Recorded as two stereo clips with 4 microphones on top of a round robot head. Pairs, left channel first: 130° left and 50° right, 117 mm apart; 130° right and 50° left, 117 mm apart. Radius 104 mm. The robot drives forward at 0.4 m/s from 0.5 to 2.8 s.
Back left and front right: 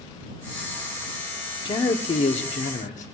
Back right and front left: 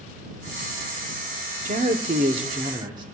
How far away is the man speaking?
About 0.9 m.